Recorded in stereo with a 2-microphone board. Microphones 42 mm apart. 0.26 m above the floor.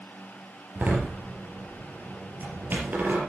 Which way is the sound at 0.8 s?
45° right (ahead or behind).